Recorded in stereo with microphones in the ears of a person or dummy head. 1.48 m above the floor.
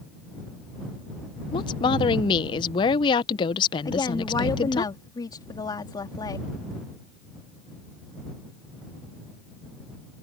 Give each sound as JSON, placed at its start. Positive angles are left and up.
{"t": 1.5, "sound": "a woman speaking", "side_deg": 25}
{"t": 3.9, "sound": "a woman speaking", "side_deg": 20}